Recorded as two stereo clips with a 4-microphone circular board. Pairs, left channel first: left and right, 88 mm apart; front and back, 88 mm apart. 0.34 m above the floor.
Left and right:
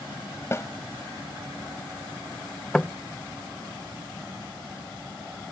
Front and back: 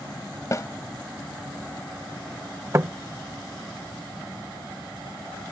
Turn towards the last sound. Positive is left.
turn(degrees=160)